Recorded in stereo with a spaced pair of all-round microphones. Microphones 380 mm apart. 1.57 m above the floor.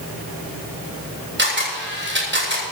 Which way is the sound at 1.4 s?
30° right (ahead or behind).